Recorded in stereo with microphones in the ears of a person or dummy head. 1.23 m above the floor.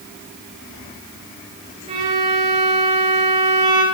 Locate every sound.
1.9 s a violin: 30° right (ahead or behind), 4 m